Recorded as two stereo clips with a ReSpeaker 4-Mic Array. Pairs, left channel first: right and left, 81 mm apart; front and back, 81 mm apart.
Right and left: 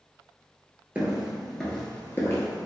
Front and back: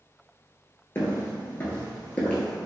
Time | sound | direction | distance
0.9 | footsteps | 35° left | 0.9 m